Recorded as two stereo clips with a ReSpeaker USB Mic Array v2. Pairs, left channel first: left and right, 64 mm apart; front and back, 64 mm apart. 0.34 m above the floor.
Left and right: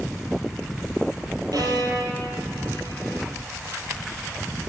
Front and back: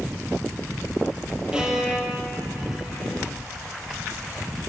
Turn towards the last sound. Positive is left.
turn(degrees=-100)